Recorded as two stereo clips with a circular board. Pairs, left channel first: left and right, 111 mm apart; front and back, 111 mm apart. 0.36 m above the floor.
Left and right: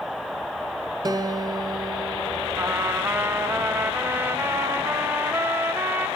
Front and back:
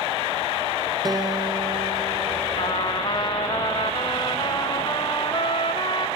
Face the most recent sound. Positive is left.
turn(degrees=-25)